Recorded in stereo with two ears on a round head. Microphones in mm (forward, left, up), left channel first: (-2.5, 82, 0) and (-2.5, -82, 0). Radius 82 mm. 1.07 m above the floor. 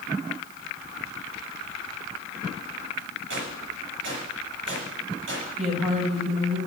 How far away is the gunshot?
About 8 m.